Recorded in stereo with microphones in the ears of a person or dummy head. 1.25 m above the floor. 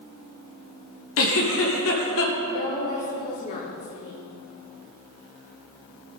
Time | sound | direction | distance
1.2 | a giggle | 65° left (ahead or behind) | 1.6 m
2.5 | a woman speaking | 45° left (ahead or behind) | 2.5 m